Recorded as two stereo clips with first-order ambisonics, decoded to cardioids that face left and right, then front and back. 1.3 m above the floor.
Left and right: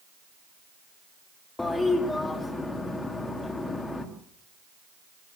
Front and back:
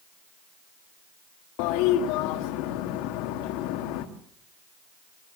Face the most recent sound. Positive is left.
turn(degrees=10)